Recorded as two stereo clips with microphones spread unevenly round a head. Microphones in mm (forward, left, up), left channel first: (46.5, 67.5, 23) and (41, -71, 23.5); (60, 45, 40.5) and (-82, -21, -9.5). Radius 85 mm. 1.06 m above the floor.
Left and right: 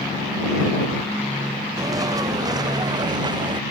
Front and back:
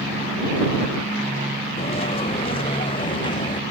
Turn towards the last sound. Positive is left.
turn(degrees=-35)